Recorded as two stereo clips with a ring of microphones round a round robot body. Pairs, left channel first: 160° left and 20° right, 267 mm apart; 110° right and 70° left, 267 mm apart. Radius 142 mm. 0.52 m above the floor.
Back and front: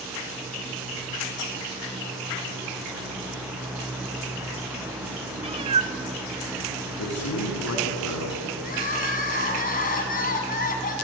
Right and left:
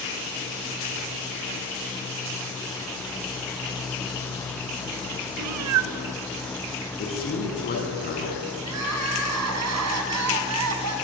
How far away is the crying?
About 3.5 m.